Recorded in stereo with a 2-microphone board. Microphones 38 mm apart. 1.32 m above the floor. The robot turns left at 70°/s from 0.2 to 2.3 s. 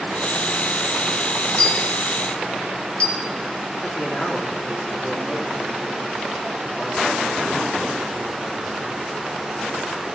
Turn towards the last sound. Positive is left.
turn(degrees=10)  # may be behind; listen again after turning